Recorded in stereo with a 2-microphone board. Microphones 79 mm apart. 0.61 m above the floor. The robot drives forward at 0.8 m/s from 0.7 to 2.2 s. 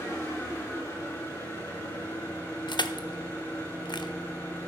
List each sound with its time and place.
0.0 s an engine running: 30° left (ahead or behind), 6.5 m; by 4.7 s 25° left (ahead or behind), 7.5 m
2.7 s crushing: 70° left (ahead or behind), 0.7 m